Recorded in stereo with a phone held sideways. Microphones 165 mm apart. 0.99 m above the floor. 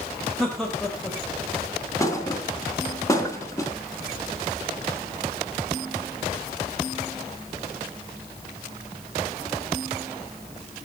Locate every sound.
0.4 s laughter: 5° left (ahead or behind), 3.5 m
2.0 s a thud: 20° left (ahead or behind), 4 m